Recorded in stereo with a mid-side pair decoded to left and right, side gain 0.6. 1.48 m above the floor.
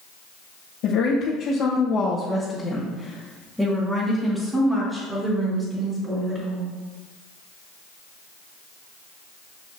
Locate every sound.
0.8 s a woman speaking: 65° left, 1.6 m; by 6.7 s 30° right, 4 m